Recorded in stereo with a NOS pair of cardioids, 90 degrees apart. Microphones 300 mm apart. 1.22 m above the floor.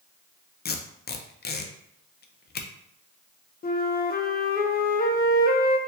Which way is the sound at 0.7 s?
35° left.